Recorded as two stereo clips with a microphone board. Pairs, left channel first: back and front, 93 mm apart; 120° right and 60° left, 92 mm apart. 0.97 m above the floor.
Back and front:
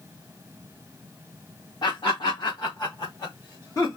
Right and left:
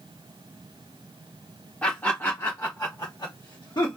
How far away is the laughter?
About 1.4 m.